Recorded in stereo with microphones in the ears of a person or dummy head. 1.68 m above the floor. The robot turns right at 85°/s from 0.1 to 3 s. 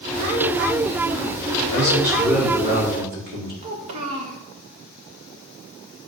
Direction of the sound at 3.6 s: 40° right (ahead or behind).